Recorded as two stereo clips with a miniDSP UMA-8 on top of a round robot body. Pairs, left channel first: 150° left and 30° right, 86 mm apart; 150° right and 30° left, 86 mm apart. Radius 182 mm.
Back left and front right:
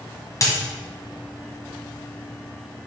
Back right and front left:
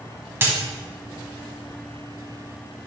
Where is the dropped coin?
95° left, 1.5 m.